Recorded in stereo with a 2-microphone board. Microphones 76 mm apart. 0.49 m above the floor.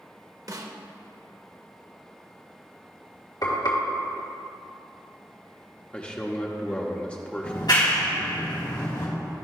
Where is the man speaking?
15° left (ahead or behind), 0.8 m.